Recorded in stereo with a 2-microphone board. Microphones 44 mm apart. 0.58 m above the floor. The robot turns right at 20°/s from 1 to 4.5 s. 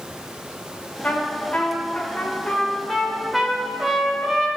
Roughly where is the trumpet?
Behind left.